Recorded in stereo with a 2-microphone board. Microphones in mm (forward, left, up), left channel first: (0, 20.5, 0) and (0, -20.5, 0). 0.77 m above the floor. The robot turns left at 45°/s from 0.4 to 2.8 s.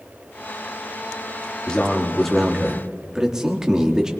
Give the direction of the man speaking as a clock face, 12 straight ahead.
11 o'clock.